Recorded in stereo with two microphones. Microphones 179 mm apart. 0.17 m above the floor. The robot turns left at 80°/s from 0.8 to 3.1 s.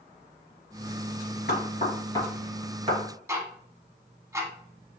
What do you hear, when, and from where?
1.5 s knocking: 60° left (ahead or behind), 2.5 m; by 3.0 s 35° right (ahead or behind), 2.5 m
3.3 s ticking: 15° right (ahead or behind), 0.9 m